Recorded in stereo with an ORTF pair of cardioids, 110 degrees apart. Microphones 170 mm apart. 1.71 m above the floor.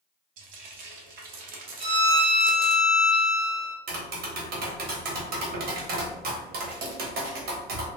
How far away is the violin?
About 1.0 m.